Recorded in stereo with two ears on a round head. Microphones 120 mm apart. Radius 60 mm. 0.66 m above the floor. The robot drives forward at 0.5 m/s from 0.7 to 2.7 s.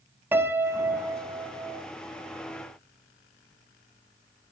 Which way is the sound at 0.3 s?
15° right (ahead or behind).